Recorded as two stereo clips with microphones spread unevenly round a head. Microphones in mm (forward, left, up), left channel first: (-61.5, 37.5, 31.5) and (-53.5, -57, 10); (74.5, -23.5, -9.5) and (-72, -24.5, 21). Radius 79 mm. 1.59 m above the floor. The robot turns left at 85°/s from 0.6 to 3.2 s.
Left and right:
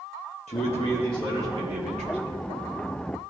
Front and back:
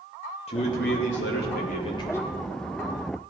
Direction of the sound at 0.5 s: 55° left.